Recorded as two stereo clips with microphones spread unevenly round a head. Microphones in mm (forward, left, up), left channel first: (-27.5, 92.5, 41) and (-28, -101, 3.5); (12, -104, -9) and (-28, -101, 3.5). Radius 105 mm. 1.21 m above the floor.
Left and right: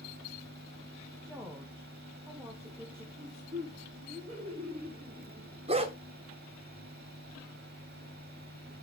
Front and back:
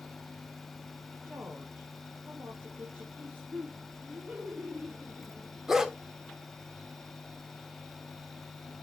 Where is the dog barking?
145° right, 0.9 m.